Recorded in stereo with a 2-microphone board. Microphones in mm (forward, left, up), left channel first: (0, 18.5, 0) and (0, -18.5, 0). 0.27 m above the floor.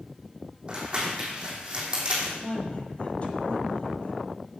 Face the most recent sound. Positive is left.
turn(degrees=35)  # may be behind; listen again after turning